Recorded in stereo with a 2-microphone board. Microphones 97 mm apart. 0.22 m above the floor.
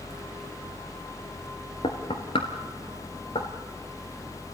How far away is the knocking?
About 2.5 m.